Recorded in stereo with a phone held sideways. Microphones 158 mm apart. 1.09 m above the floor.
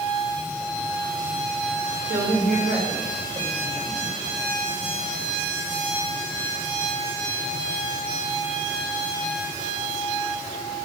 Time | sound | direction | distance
2.0 | a woman speaking | 80° right | 4.5 m